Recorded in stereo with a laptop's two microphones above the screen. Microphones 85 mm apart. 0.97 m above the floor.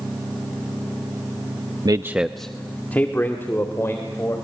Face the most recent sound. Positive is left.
turn(degrees=35)  # may be behind; listen again after turning